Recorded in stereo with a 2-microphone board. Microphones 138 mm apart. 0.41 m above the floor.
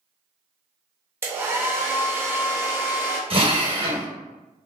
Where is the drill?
40° right (ahead or behind), 0.6 m.